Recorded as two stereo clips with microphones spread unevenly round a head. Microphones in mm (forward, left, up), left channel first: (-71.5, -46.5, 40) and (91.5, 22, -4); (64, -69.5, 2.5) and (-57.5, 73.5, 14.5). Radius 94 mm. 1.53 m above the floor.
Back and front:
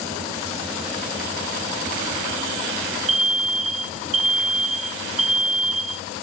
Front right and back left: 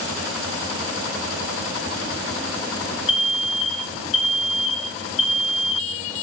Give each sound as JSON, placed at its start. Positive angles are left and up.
{"t": 3.1, "sound": "an alarm", "azimuth_deg": -5, "distance_m": 0.7}